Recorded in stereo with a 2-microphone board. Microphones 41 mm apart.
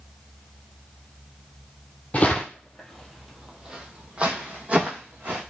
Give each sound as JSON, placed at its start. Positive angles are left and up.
{"t": 2.1, "sound": "footsteps", "side_deg": 40, "distance_m": 0.9}